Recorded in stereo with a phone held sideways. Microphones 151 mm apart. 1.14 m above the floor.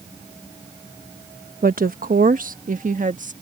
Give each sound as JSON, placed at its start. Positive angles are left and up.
{"t": 1.6, "sound": "a woman speaking", "side_deg": -75}